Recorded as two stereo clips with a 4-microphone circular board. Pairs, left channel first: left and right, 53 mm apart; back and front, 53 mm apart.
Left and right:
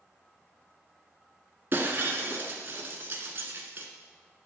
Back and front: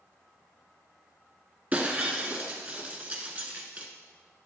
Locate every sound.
1.7 s breaking glass: 50° right, 1.2 m